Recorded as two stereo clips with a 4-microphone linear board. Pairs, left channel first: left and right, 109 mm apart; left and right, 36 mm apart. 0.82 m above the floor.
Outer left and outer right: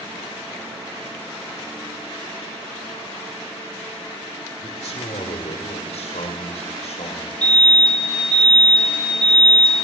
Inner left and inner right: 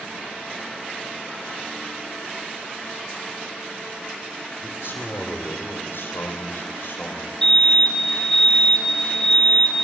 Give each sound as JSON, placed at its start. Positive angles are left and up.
{"t": 4.6, "sound": "a man speaking", "side_deg": 70, "distance_m": 2.5}
{"t": 7.4, "sound": "a fire alarm", "side_deg": 10, "distance_m": 6.0}